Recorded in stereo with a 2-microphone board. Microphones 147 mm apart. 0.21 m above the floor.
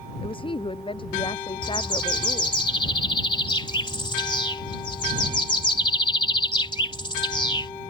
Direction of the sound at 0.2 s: 35° left (ahead or behind).